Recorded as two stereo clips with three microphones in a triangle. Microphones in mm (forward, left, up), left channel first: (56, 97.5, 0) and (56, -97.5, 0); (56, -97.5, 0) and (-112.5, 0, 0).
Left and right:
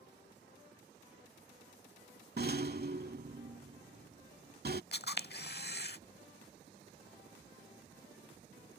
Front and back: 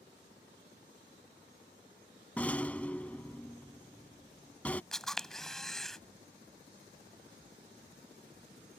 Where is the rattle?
110° right.